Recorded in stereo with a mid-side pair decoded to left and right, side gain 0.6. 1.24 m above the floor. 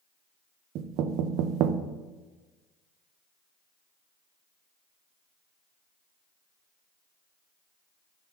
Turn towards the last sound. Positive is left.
turn(degrees=-65)